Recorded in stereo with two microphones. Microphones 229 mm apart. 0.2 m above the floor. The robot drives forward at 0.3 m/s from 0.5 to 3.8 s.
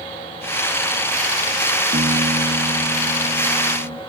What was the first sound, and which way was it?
A piano, 45° right (ahead or behind).